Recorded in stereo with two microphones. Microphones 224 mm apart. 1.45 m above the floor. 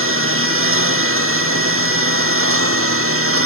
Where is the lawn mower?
70° right (ahead or behind); by 3.5 s 75° right (ahead or behind).